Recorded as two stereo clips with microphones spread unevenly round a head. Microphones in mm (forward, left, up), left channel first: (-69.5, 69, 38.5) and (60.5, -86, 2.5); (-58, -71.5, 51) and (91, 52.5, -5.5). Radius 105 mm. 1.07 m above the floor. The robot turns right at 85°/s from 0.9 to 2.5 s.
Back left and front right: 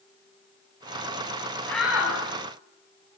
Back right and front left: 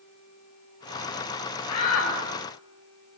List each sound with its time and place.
1.7 s a shout: 150° right, 9 m; by 2.1 s 110° right, 9 m